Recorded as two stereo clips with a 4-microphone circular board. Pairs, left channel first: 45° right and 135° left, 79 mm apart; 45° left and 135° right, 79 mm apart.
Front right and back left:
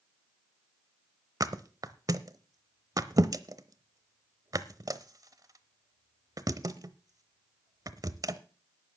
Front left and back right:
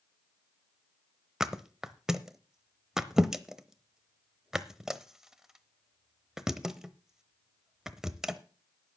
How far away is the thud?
About 0.8 m.